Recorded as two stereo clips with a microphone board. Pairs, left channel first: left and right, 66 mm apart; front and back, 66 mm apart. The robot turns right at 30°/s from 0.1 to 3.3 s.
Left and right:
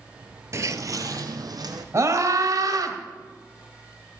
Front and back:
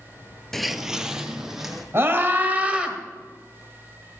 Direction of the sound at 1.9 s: 130° right.